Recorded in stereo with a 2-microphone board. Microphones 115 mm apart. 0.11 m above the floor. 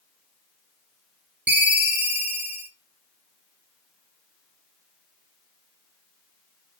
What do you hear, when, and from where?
1.5 s a ringtone: 15° right (ahead or behind), 0.9 m